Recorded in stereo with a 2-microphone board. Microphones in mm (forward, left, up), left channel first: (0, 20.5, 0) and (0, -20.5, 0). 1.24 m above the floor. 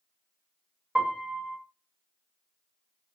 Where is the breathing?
No breathing in this recording.